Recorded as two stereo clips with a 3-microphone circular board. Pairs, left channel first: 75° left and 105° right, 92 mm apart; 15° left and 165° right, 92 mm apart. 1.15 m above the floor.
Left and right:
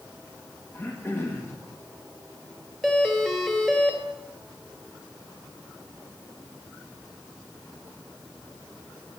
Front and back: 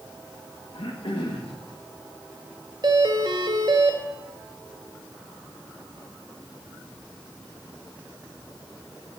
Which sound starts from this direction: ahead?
Throat clearing, at 0.7 s.